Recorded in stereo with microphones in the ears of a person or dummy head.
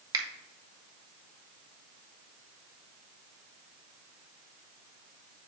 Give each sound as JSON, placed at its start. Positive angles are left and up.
{"t": 0.1, "sound": "a finger snap", "side_deg": -20, "distance_m": 1.2}